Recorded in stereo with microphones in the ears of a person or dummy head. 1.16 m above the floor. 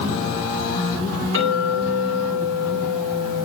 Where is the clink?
80° right, 9.5 m.